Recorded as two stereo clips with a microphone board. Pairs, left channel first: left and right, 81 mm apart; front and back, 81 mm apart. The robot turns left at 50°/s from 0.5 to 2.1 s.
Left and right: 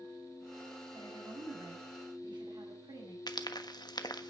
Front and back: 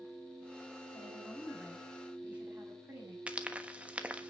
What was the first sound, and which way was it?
A woman speaking, 55° right.